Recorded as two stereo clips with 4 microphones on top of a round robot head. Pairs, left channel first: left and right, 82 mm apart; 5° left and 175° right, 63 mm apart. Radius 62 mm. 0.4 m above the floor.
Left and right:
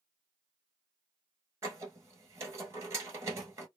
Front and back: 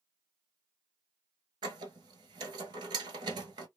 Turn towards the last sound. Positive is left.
turn(degrees=-155)